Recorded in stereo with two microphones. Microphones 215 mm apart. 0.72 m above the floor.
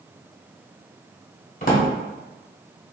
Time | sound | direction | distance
1.6 | a drawer | 45° left (ahead or behind) | 0.9 m